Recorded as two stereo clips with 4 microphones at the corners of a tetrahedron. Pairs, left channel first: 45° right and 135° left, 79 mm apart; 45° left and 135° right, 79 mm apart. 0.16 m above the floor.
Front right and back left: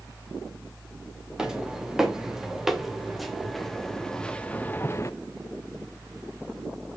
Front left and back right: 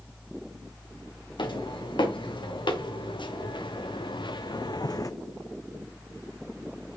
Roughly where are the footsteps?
Ahead left.